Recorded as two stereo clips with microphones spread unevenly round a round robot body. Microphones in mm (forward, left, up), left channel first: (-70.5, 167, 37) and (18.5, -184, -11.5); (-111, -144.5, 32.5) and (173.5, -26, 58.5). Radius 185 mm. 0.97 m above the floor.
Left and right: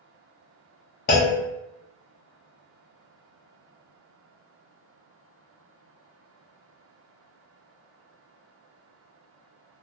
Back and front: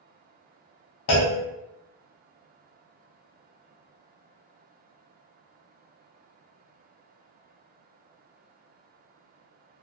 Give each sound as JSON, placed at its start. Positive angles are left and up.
{"t": 1.1, "sound": "a clunk", "azimuth_deg": 165, "distance_m": 0.6}